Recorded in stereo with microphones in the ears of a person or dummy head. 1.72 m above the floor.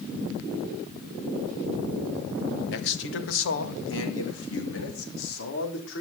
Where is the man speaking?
60° left (ahead or behind), 1.6 m; by 6.0 s 70° left (ahead or behind), 4 m.